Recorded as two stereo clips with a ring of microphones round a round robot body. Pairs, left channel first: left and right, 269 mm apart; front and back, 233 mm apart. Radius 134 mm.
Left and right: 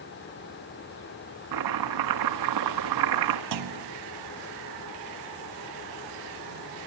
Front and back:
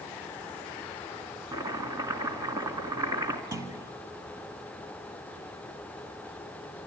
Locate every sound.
1.5 s chopping: 100° right, 1.7 m
3.5 s a clunk: 100° right, 1.3 m